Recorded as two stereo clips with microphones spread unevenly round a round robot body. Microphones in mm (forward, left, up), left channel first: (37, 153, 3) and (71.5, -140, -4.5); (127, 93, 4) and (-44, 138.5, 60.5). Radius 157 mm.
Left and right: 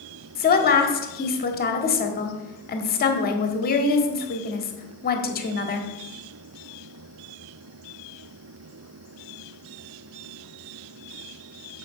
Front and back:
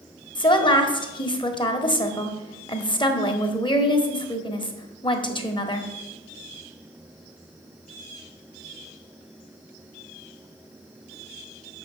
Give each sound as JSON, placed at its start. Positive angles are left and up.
{"t": 0.3, "sound": "a woman speaking", "azimuth_deg": 40, "distance_m": 1.5}